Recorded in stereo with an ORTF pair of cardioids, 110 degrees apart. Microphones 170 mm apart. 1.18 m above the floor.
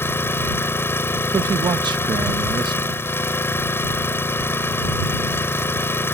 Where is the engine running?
15° left.